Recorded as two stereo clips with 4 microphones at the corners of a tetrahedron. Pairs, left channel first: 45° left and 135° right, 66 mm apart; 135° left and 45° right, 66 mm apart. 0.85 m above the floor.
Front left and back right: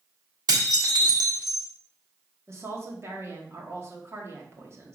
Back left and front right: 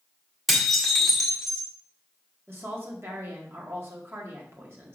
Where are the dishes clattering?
135° right, 1.5 m.